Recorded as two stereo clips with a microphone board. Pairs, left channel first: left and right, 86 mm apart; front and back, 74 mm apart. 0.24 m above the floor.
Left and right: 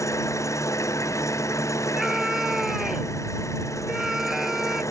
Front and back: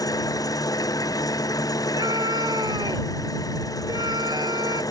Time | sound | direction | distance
0.0 | an engine running | 35° left | ?
2.0 | a scream | 175° right | ?